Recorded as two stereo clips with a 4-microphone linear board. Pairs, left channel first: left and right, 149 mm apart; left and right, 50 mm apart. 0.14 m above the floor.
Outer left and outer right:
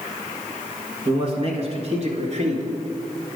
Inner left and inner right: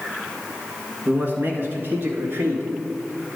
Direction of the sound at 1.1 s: 40° right (ahead or behind).